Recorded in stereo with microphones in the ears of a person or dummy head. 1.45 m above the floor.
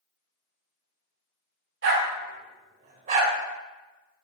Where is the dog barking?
65° right (ahead or behind), 2.5 m; by 4.2 s 15° right (ahead or behind), 3 m.